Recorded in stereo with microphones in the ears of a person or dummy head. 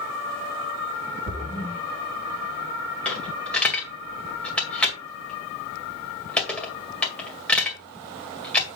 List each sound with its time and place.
1.3 s a splash: 45° left (ahead or behind), 3 m
3.0 s a dropped coin: 5° left (ahead or behind), 2.0 m